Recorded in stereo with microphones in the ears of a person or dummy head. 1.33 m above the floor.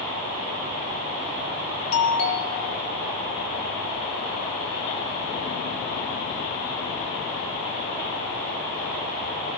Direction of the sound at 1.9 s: 70° left (ahead or behind).